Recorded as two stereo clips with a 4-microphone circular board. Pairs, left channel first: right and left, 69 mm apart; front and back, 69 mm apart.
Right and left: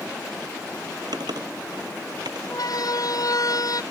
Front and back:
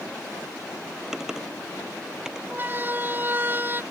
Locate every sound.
1.1 s typing on a keyboard: 100° left
2.5 s a siren: 115° right; by 3.8 s 120° right